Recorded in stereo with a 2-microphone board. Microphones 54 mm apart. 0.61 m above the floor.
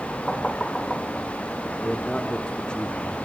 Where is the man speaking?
20° left (ahead or behind), 1.1 m.